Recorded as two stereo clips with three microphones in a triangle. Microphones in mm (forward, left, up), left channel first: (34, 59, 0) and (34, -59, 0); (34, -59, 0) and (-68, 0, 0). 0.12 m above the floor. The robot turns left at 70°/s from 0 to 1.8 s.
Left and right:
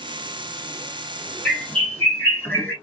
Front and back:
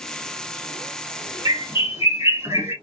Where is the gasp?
No gasp in this recording.